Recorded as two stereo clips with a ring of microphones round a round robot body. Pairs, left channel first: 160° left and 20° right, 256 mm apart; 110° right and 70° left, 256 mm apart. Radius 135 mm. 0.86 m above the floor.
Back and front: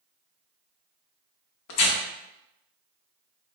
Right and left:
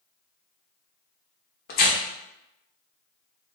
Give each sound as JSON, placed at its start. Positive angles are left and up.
{"t": 1.7, "sound": "tearing paper", "azimuth_deg": -170, "distance_m": 0.5}